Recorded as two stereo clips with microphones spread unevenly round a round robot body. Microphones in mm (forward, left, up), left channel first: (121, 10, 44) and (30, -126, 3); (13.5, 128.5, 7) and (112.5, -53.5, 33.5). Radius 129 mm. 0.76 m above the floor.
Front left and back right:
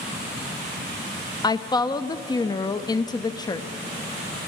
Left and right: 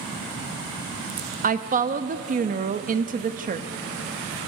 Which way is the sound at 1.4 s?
15° right.